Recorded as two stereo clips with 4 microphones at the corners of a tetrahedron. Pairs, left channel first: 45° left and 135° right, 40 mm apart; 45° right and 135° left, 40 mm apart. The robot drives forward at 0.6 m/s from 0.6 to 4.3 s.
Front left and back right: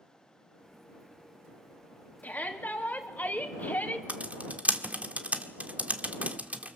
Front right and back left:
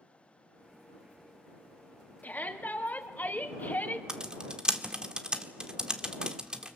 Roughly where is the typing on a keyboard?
Behind.